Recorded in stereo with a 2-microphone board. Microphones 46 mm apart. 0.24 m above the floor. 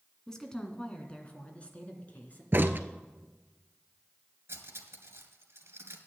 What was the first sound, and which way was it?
A woman speaking, 10° left (ahead or behind).